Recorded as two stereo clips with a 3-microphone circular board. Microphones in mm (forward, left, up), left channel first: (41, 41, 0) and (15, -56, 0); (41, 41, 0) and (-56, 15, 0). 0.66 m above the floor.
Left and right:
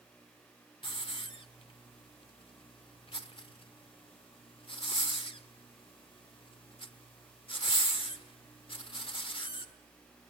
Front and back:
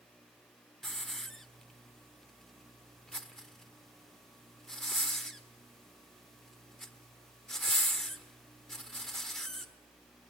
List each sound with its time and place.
0.8 s a hiss: 100° left, 1.3 m